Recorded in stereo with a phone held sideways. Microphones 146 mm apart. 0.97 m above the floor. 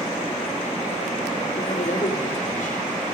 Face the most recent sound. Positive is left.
turn(degrees=70)  # may be behind; listen again after turning